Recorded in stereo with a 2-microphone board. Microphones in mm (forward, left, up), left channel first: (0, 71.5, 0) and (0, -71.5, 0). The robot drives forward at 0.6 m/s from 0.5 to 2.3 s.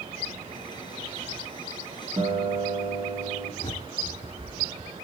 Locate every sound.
2.2 s a guitar: 30° right (ahead or behind), 1.7 m
3.6 s a bird: 40° left (ahead or behind), 1.0 m